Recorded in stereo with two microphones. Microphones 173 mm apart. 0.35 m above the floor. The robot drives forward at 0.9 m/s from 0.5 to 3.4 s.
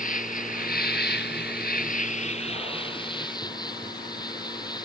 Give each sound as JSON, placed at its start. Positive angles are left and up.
{"t": 0.0, "sound": "an insect", "side_deg": 55}